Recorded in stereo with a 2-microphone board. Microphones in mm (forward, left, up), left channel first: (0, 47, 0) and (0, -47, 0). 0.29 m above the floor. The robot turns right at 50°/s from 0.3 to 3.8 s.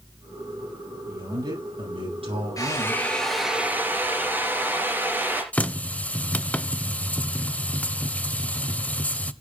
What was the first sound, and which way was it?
A man speaking, 150° right.